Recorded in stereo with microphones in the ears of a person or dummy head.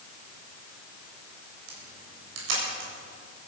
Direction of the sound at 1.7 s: 80° right.